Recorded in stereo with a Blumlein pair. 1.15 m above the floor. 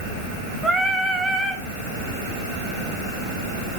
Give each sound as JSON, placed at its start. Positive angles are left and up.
{"t": 0.6, "sound": "singing", "azimuth_deg": -10, "distance_m": 1.2}